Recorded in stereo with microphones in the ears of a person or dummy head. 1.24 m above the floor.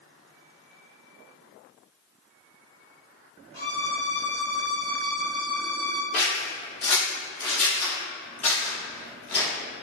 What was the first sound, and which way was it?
A violin, 15° left (ahead or behind).